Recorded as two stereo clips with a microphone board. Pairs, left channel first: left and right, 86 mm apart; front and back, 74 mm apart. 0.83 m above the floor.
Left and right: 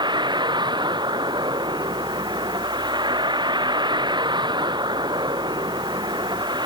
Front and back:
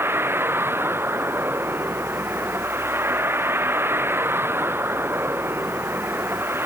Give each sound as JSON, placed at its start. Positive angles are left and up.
{"t": 0.0, "sound": "a vehicle", "azimuth_deg": -120}